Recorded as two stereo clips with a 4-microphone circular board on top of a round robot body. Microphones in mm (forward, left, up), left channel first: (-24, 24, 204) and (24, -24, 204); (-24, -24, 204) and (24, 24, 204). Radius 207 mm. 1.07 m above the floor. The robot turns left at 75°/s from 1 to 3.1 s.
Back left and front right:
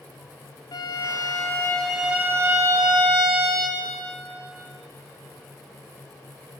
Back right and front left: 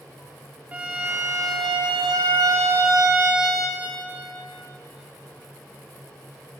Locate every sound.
0.7 s a violin: 115° left, 0.5 m; by 3.9 s 40° right, 0.5 m